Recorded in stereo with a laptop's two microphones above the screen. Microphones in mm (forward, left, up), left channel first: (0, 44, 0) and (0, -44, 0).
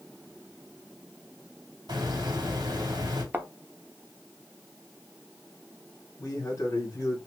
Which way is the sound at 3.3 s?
25° right (ahead or behind).